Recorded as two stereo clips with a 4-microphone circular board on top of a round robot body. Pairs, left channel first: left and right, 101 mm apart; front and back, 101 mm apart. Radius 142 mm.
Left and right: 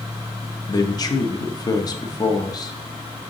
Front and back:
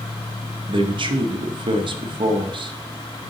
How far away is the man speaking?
About 1.0 m.